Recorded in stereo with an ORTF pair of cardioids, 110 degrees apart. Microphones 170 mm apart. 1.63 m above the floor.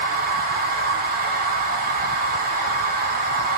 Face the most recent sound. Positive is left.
turn(degrees=-55)